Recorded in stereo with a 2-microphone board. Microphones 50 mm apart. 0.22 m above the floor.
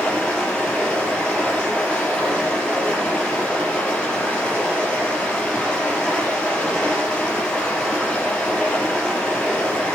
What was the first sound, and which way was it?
Running water, 20° left (ahead or behind).